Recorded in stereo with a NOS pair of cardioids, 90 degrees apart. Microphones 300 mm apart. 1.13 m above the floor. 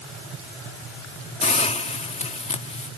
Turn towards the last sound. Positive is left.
turn(degrees=20)